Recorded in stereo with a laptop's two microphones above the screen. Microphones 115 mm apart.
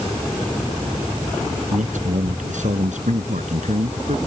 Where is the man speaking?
85° right.